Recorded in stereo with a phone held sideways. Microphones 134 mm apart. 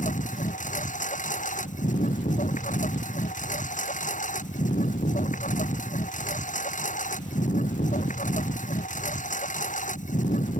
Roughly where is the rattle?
I don't hear a rattle.